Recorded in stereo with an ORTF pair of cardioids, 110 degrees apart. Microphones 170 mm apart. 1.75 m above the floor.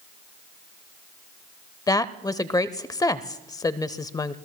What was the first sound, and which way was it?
A woman speaking, 20° left.